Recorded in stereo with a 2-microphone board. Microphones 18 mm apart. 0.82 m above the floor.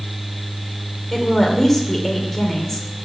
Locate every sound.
1.1 s a woman speaking: 20° left (ahead or behind), 2.5 m